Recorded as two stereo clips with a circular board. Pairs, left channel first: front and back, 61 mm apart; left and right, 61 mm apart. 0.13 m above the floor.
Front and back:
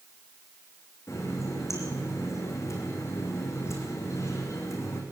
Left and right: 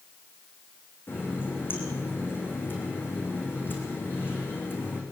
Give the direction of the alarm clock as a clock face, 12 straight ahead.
No alarm clock in this recording.